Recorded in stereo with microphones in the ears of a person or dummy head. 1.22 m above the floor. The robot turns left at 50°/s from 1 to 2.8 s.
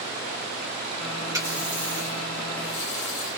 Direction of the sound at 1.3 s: 165° right.